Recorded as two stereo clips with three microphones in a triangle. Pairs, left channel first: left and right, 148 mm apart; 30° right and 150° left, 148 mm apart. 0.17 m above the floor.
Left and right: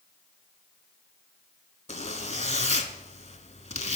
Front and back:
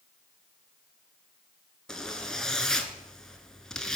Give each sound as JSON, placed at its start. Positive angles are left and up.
{"t": 1.9, "sound": "a zipper", "azimuth_deg": 55, "distance_m": 0.7}